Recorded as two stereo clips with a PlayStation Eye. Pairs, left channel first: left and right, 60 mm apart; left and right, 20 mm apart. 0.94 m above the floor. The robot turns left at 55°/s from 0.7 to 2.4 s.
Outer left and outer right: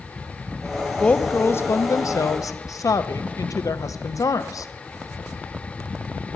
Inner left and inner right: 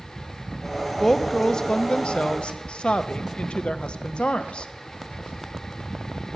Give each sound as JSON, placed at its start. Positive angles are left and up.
{"t": 1.0, "sound": "a woman speaking", "azimuth_deg": 165, "distance_m": 0.7}